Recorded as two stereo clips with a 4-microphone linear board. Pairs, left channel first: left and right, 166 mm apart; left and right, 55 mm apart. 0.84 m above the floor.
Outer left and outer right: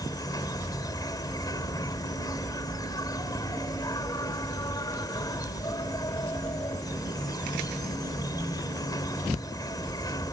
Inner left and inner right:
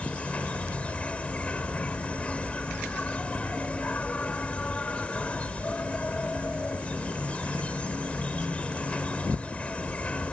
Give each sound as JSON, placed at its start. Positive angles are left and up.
{"t": 0.0, "sound": "an insect", "side_deg": 25}